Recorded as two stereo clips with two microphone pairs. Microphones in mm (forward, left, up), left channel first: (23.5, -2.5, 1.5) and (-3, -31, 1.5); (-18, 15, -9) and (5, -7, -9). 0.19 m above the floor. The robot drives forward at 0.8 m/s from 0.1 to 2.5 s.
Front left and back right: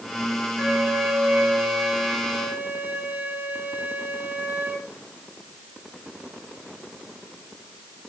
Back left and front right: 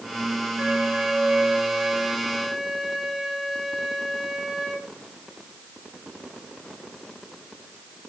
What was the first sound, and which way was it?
A flute, 70° right.